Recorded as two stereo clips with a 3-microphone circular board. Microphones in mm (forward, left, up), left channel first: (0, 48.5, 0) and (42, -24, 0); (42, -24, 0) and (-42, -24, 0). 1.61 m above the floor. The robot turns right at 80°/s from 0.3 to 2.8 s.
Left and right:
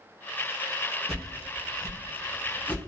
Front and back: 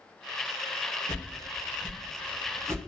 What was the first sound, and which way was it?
A whoosh, 40° left.